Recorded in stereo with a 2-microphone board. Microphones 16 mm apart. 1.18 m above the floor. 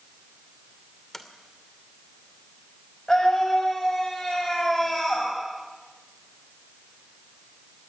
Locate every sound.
1.1 s a sliding door: 30° left (ahead or behind), 2.5 m
3.1 s a scream: 30° left (ahead or behind), 6.5 m